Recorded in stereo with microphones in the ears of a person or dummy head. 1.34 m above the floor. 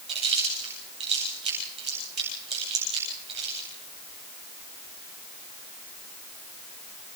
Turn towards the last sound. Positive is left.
turn(degrees=-30)  # may be behind; listen again after turning